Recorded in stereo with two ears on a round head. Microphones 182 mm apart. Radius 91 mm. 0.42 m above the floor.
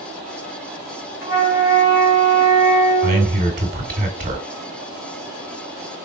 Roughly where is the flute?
Left.